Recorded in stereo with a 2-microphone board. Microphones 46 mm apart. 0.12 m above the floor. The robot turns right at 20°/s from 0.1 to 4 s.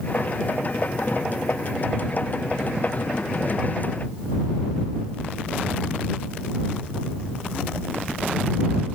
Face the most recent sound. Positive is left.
No sound to turn to.